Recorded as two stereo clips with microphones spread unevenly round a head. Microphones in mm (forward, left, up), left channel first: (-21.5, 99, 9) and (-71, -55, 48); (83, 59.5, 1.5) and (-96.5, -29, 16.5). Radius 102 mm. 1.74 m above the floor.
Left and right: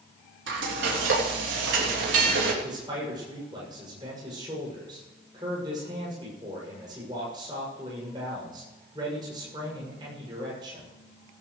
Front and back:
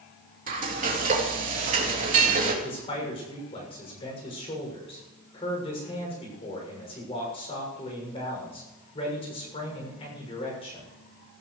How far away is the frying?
About 3 m.